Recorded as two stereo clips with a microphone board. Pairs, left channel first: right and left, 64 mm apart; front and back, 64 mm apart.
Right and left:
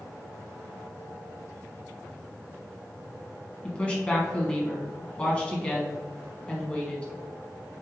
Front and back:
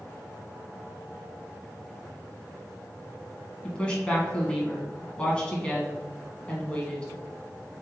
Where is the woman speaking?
45° right, 1.3 m.